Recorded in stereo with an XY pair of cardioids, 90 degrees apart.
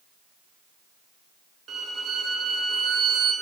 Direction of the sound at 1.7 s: 65° right.